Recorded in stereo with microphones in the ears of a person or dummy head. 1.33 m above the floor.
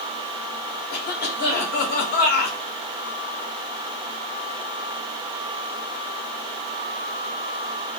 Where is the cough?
50° left (ahead or behind), 1.1 m.